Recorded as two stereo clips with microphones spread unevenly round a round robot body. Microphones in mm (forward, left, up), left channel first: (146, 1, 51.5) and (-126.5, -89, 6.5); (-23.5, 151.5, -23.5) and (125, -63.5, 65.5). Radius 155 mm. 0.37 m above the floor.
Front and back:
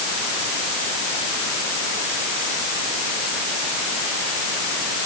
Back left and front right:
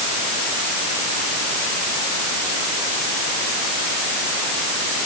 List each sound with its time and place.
Only background noise.